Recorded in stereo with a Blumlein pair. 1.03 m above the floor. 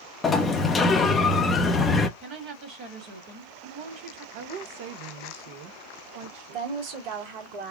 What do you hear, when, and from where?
0.2 s a sliding door: 20° left, 0.6 m
2.2 s a woman speaking: 40° right, 1.6 m
4.3 s a woman speaking: 50° right, 0.7 m
6.5 s a woman speaking: 50° right, 1.4 m